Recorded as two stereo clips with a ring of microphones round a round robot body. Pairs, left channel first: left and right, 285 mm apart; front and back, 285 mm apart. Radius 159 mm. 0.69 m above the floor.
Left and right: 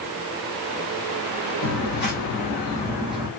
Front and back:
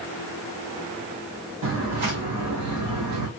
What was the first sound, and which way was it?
Footsteps, 140° left.